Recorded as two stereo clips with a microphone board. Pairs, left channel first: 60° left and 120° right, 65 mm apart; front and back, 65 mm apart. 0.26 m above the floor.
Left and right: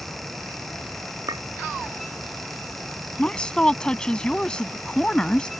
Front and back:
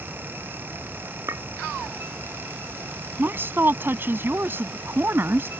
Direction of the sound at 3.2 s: 135° left.